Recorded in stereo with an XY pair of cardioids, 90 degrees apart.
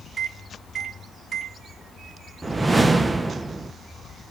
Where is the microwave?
55° right, 1.2 m.